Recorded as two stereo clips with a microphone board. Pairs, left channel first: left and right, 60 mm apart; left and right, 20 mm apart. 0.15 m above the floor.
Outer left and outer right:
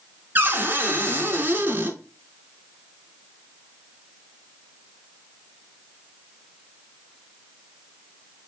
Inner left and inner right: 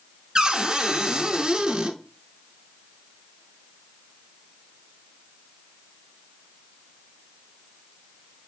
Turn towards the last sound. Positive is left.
turn(degrees=-35)  # may be behind; listen again after turning